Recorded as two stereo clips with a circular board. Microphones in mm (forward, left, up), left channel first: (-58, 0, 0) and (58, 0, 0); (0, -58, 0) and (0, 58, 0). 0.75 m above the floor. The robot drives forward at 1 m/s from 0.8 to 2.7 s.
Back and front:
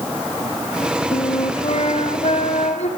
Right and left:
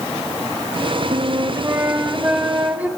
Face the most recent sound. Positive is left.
turn(degrees=165)